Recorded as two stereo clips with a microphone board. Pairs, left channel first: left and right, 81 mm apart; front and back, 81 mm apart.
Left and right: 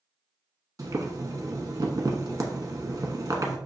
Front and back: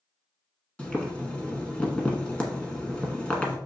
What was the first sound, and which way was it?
Boiling, 70° right.